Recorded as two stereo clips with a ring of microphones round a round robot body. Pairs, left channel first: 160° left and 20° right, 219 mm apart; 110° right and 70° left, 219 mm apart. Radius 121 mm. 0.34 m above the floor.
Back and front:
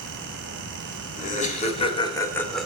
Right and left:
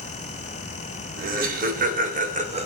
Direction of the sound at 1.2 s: 110° left.